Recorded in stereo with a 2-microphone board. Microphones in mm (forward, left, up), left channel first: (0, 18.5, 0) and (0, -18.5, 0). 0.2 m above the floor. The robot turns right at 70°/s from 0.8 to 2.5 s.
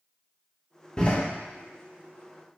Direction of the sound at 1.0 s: 25° left (ahead or behind).